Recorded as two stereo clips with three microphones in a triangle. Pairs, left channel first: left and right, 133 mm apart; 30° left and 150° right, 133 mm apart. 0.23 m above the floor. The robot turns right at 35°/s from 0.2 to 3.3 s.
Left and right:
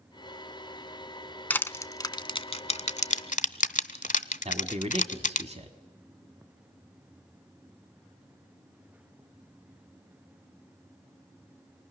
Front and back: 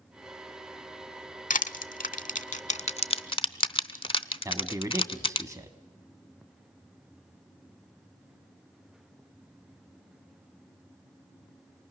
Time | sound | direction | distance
1.5 | crushing | 15° left | 0.6 m
4.5 | a man speaking | 90° right | 1.4 m